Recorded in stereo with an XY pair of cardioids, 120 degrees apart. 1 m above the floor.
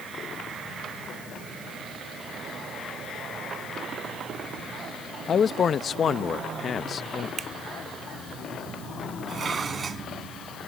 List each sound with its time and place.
5.3 s a man speaking: 40° left
7.4 s a finger snap: 45° right
9.3 s dishes clattering: 35° right